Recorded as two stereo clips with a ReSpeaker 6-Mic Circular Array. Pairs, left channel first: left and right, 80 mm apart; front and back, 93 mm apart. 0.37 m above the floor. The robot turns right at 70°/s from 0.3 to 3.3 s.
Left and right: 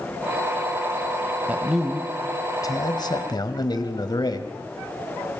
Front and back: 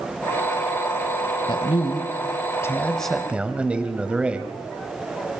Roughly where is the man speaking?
Ahead right.